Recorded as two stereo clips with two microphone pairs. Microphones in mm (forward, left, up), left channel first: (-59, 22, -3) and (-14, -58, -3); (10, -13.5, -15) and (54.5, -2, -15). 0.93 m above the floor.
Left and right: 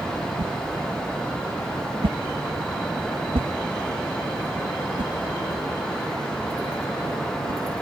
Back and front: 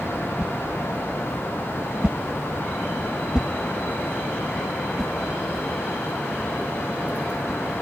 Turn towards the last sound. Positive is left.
turn(degrees=-60)